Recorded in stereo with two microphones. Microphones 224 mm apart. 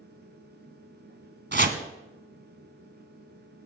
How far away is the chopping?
About 1.0 m.